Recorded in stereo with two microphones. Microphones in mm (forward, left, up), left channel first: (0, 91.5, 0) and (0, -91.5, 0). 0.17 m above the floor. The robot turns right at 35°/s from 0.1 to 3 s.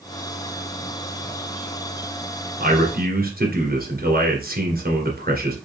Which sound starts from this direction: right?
A man speaking, at 2.6 s.